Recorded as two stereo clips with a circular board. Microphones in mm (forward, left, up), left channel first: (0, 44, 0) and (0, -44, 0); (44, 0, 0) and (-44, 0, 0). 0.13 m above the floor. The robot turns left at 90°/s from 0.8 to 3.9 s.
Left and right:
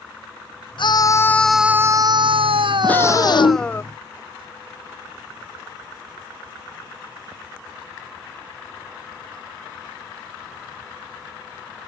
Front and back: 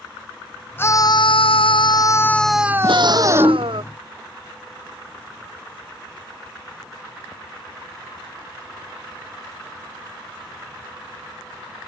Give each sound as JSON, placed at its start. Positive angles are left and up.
{"t": 0.8, "sound": "a scream", "azimuth_deg": 65}
{"t": 2.8, "sound": "a scream", "azimuth_deg": 170}